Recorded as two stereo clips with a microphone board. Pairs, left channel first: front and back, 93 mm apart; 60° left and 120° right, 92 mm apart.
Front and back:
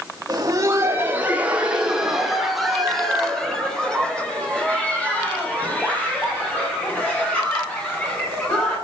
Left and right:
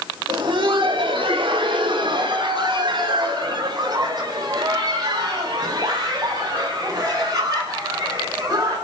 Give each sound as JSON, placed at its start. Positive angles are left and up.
{"t": 0.3, "sound": "laughter", "azimuth_deg": -140, "distance_m": 1.8}